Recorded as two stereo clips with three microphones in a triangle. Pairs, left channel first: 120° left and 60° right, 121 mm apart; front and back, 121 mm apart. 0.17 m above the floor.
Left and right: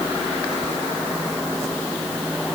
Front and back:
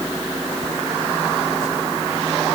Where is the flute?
No flute in this recording.